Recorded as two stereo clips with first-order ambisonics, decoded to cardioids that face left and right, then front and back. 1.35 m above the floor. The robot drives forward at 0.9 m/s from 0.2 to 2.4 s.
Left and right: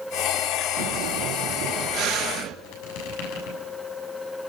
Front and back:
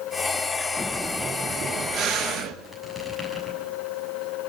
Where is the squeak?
90° left, 7 m.